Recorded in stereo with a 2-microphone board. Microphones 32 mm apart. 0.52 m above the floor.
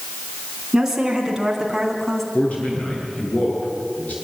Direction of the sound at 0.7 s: 15° right (ahead or behind).